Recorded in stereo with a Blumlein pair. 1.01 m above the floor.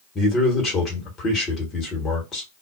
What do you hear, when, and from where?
0.1 s a man speaking: 25° left, 1.2 m